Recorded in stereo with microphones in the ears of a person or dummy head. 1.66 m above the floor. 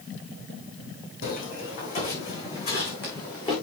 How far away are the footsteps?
About 4.5 m.